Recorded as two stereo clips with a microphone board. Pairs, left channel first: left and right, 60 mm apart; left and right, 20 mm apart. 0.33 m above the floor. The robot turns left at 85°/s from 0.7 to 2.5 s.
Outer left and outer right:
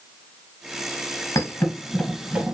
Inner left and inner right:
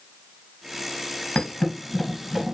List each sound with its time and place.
1.4 s a thud: 70° left (ahead or behind), 1.3 m; by 2.5 s 30° right (ahead or behind), 1.3 m